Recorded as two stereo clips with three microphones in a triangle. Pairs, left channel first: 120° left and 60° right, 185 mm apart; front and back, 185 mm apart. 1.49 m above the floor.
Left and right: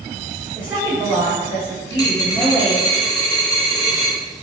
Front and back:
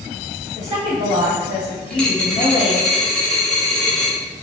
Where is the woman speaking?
20° left, 2.0 m.